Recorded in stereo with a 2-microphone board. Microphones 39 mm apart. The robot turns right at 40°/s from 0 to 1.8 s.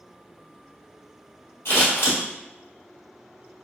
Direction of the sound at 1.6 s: 65° left (ahead or behind).